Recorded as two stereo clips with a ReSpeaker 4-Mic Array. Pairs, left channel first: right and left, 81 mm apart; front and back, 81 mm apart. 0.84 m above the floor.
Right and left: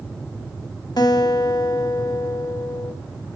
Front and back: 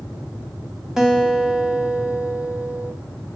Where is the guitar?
95° right, 1.4 m.